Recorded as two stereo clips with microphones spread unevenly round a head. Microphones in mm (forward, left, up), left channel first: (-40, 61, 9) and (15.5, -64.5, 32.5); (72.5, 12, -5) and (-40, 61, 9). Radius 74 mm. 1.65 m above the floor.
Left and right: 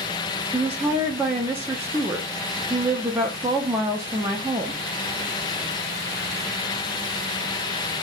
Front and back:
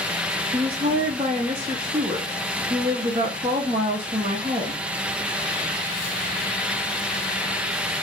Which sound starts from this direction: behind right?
A woman speaking, at 0.5 s.